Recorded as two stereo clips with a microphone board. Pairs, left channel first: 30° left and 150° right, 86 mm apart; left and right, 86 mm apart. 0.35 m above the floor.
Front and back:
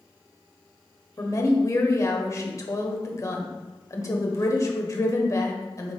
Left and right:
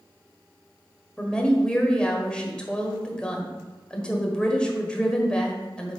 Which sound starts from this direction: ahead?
A woman speaking, at 1.2 s.